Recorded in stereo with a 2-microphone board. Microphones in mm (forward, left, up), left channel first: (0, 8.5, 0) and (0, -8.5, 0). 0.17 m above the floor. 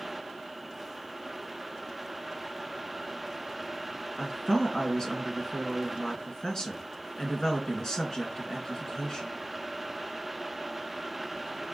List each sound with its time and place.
4.2 s a woman speaking: 40° left (ahead or behind), 2.5 m